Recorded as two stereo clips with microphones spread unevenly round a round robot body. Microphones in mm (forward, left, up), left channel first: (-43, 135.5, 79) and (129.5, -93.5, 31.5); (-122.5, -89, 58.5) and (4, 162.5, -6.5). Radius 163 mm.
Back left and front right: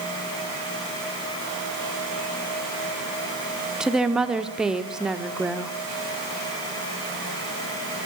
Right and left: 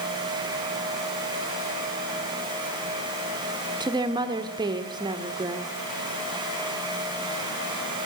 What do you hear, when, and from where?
3.8 s a woman speaking: 20° left, 1.4 m